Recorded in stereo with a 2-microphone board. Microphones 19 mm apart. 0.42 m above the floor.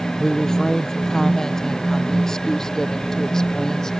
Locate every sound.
0.2 s a woman speaking: 20° left (ahead or behind)